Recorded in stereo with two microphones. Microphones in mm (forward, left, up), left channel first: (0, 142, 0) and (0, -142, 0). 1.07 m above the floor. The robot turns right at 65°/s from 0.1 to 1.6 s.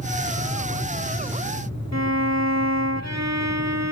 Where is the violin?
65° right (ahead or behind).